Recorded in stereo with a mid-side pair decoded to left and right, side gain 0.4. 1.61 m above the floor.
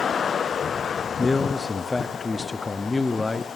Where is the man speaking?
30° left, 0.6 m.